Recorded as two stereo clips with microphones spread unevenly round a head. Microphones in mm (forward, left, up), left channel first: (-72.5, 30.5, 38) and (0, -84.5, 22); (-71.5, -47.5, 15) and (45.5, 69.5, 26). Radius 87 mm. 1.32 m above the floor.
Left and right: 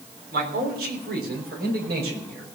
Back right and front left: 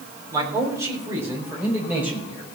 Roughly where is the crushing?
No crushing in this recording.